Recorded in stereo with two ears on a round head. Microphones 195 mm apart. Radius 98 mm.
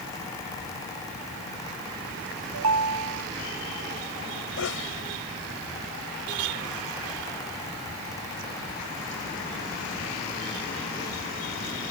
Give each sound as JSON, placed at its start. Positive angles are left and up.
{"t": 2.5, "sound": "a ringtone", "side_deg": -85}
{"t": 4.6, "sound": "a sneeze", "side_deg": 70}